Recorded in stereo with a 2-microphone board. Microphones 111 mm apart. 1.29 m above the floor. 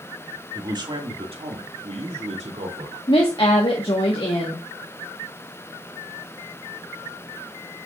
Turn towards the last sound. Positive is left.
turn(degrees=55)  # may be behind; listen again after turning